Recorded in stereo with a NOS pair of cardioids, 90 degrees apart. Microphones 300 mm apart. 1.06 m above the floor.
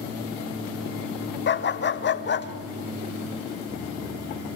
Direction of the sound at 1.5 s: 40° left.